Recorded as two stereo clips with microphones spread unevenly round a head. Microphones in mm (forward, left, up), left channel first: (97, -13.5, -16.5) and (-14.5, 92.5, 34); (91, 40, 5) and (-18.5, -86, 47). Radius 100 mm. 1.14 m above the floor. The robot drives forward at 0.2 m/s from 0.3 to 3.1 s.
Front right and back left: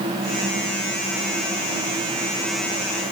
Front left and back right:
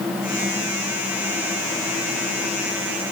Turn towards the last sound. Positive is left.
No sound to turn to.